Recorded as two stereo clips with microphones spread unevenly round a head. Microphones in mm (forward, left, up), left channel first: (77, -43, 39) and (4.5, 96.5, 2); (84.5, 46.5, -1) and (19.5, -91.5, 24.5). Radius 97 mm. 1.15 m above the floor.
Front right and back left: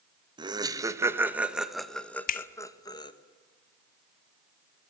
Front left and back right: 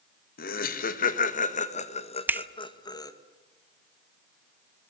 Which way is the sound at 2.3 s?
40° right.